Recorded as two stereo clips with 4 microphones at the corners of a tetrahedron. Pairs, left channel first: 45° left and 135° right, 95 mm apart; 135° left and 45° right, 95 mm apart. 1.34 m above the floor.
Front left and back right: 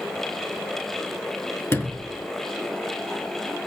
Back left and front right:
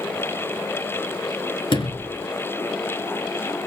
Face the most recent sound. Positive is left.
turn(degrees=110)